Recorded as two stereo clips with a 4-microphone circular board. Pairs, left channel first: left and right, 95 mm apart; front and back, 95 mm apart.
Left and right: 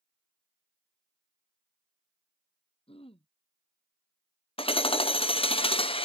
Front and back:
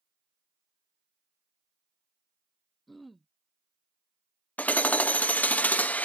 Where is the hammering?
75° left.